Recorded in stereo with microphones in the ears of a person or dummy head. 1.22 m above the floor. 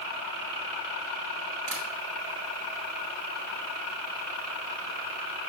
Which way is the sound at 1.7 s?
65° right (ahead or behind).